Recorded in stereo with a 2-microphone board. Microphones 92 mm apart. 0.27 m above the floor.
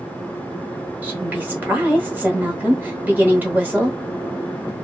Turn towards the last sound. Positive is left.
turn(degrees=-20)  # may be behind; listen again after turning